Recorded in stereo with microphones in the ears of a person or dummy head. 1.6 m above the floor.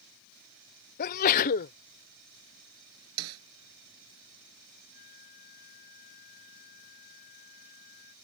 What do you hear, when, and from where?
1.0 s a sneeze: 50° left (ahead or behind)
3.2 s a snare drum: 85° right
4.9 s a flute: 55° left (ahead or behind)